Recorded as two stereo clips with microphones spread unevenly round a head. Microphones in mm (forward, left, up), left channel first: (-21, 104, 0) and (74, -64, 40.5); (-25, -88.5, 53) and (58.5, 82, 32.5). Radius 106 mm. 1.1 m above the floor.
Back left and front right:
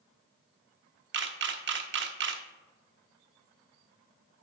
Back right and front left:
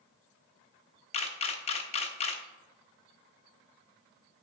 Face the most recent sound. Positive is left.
turn(degrees=-65)